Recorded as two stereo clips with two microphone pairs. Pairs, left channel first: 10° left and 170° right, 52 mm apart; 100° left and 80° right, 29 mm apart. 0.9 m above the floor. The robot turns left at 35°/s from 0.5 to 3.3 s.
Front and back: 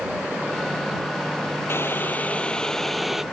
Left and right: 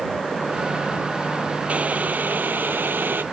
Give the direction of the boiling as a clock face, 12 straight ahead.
1 o'clock.